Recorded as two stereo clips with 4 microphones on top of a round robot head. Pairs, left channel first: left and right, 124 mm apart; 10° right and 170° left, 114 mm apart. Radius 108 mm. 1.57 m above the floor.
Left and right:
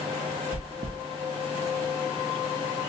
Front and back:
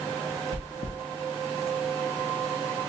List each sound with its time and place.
0.5 s chewing: 45° right, 0.5 m